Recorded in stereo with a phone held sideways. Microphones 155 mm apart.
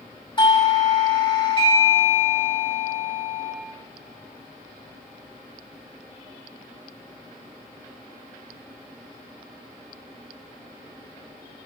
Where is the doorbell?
35° left (ahead or behind), 1.9 m.